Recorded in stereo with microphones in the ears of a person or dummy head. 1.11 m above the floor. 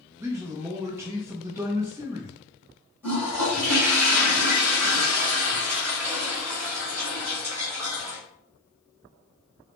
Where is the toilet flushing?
15° right (ahead or behind), 2.5 m.